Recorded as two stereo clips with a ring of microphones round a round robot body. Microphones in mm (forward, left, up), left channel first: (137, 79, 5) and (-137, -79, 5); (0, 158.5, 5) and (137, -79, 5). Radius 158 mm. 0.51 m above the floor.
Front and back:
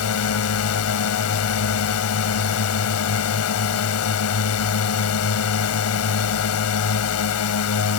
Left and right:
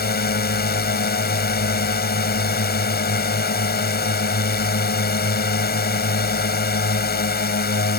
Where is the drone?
70° left.